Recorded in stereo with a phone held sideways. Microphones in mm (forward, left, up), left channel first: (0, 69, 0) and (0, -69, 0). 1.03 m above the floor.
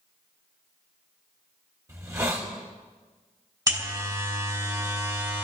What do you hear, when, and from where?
1.9 s a hiss: 25° right (ahead or behind), 2.5 m
3.7 s a buzzer: 25° right (ahead or behind), 3.5 m